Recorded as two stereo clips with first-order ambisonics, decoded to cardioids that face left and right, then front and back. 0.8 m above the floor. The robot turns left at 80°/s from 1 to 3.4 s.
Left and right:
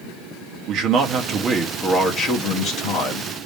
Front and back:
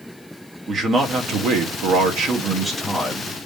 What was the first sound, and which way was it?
A man speaking, 125° right.